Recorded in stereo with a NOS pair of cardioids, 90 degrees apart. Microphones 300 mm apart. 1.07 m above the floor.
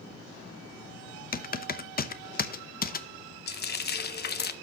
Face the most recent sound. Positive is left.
turn(degrees=35)